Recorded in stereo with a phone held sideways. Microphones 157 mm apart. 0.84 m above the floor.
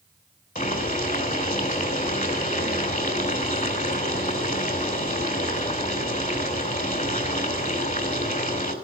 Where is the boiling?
60° left (ahead or behind), 3 m.